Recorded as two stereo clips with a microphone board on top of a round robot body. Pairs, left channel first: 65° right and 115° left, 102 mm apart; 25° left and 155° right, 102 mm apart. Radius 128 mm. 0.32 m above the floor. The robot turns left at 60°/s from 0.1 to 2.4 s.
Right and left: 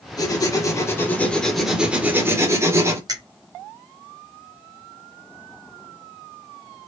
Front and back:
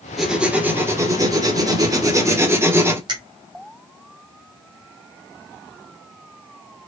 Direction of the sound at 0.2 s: 70° right.